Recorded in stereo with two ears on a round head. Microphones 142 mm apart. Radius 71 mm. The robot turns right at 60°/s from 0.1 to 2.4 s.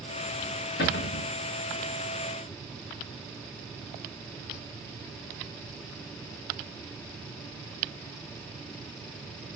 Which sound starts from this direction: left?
A cupboard door, at 0.8 s.